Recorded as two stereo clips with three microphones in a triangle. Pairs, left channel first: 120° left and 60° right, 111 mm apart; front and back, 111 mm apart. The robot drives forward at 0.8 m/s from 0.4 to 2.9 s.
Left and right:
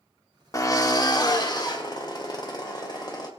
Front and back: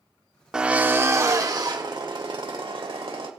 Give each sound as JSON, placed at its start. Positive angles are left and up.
{"t": 0.5, "sound": "a drill", "azimuth_deg": 105, "distance_m": 1.2}